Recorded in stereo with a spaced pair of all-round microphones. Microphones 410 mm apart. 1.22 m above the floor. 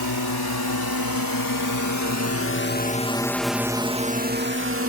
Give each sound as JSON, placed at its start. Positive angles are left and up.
{"t": 0.0, "sound": "a drone", "side_deg": 75}